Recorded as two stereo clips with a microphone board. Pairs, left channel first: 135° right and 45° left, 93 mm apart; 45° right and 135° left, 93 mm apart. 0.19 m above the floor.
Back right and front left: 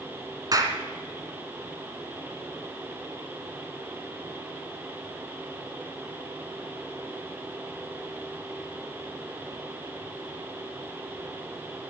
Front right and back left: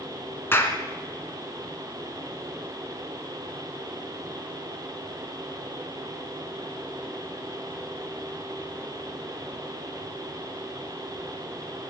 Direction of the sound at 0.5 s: 15° left.